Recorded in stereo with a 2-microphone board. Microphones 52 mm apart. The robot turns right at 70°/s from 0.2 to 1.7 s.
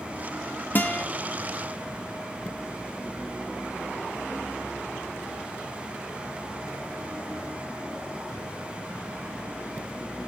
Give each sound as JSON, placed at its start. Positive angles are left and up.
{"t": 0.8, "sound": "a guitar", "side_deg": 35, "distance_m": 1.0}